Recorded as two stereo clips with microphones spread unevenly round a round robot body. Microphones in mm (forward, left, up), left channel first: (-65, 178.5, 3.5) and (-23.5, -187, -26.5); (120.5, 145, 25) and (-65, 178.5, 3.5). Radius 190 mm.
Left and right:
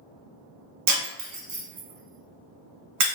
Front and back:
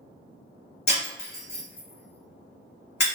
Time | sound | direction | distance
0.9 | breaking glass | 35° right | 1.0 m